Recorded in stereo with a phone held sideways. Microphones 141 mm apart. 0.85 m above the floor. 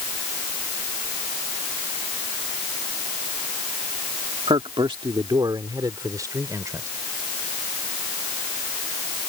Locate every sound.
4.5 s a man speaking: 40° right (ahead or behind); by 6.9 s 20° right (ahead or behind)